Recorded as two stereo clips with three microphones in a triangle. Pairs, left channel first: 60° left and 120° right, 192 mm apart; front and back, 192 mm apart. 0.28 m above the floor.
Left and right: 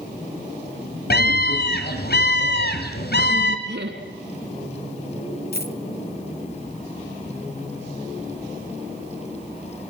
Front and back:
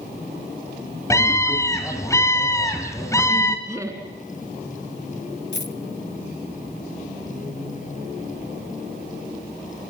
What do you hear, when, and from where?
1.1 s a scream: 70° left, 2.5 m
3.7 s laughter: 105° right, 2.5 m
5.5 s a dropped coin: 25° left, 0.8 m